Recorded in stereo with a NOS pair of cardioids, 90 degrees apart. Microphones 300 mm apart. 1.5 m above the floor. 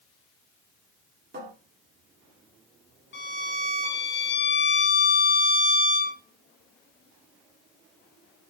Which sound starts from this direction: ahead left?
A violin, at 3.1 s.